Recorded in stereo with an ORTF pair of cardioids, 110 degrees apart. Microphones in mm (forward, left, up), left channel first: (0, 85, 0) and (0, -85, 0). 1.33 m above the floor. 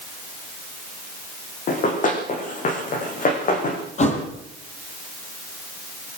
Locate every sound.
1.7 s running footsteps: 50° left, 5.5 m
4.0 s a thud: 40° left, 7 m